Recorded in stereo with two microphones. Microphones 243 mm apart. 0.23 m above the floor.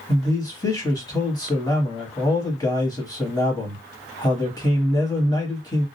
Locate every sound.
0.1 s a man speaking: 15° left (ahead or behind), 1.1 m